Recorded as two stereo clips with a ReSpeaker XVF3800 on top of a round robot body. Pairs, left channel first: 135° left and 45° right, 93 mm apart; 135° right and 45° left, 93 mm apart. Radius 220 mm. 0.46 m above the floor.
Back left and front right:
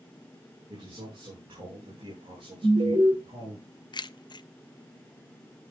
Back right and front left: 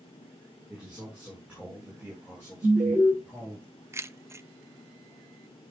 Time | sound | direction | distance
0.7 | a man speaking | 35° right | 6.5 m
2.6 | an alarm | straight ahead | 5 m
3.9 | keys jangling | 105° left | 0.6 m